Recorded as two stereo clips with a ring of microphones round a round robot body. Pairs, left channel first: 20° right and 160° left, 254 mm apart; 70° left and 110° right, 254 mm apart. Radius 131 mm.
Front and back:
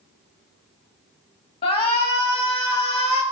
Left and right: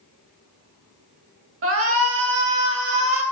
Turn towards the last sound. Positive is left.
turn(degrees=-90)